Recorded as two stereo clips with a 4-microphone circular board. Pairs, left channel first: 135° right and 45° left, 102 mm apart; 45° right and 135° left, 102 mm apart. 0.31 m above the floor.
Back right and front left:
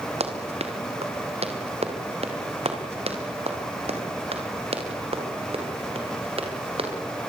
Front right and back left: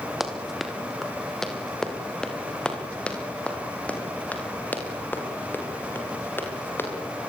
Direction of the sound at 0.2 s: 45° left.